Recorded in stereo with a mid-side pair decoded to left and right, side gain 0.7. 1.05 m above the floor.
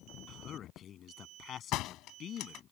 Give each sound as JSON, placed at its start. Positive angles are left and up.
{"t": 0.3, "sound": "a man speaking", "azimuth_deg": 45}
{"t": 1.7, "sound": "a door slam", "azimuth_deg": 60}